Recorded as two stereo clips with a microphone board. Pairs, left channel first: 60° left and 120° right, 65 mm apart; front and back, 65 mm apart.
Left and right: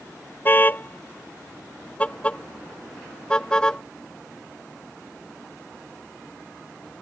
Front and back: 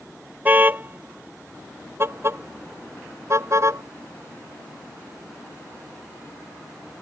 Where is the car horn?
120° left; by 3.8 s 140° left.